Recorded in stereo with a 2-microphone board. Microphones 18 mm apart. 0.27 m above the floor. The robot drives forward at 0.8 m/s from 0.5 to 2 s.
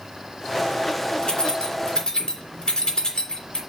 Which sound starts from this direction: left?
Keys jangling, at 1.2 s.